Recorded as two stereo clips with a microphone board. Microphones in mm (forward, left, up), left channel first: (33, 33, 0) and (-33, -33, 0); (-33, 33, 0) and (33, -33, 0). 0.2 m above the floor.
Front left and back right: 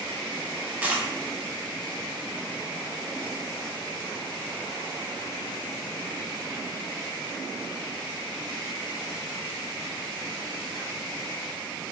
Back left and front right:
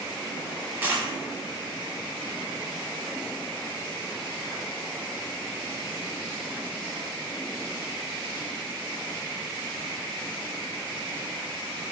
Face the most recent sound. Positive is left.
turn(degrees=-85)